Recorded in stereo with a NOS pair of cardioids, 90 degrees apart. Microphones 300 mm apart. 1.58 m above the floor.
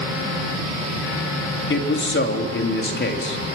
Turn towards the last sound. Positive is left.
turn(degrees=40)